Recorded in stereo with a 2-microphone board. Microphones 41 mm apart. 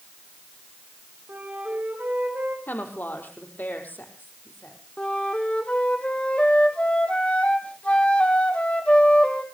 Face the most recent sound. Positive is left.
turn(degrees=30)  # may be behind; listen again after turning